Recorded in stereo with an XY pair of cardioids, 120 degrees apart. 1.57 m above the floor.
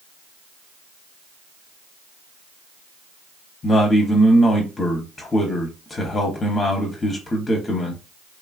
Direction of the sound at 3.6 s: 30° left.